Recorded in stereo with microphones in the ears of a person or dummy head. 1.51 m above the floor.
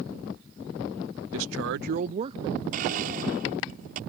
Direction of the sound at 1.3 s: 70° right (ahead or behind).